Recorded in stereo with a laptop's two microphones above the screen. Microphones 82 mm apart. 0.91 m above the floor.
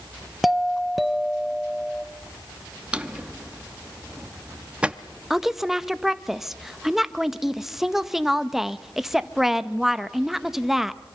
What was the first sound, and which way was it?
A doorbell, centre (ahead or behind).